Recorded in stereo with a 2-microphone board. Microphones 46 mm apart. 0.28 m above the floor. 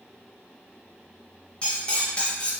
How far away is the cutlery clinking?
About 0.7 m.